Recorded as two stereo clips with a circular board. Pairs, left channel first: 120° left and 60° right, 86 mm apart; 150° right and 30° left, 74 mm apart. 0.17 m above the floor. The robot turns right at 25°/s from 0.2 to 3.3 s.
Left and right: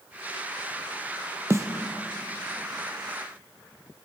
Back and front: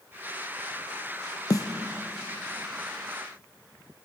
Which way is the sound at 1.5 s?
115° right.